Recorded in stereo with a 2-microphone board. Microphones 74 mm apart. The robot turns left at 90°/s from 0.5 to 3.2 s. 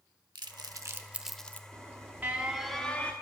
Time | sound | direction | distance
0.3 | crumpling | 70° right (ahead or behind) | 0.7 m
1.7 | an alarm | 95° right | 1.2 m